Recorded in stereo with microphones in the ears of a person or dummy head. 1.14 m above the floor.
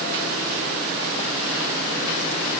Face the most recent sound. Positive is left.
No sound to turn to.